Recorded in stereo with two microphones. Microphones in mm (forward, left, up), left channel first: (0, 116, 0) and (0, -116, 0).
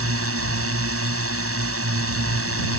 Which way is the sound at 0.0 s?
75° right (ahead or behind).